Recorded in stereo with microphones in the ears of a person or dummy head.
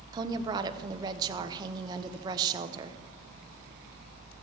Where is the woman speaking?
25° right (ahead or behind), 0.7 m.